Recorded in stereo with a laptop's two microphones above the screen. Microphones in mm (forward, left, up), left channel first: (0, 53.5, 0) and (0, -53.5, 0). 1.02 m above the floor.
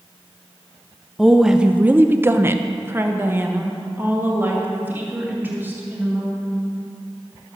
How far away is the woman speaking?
About 0.7 m.